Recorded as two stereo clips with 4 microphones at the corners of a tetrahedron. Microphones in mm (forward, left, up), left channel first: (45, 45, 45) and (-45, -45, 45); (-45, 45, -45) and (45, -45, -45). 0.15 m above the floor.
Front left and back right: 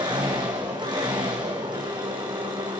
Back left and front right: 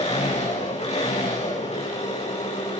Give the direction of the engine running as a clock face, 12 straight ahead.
6 o'clock.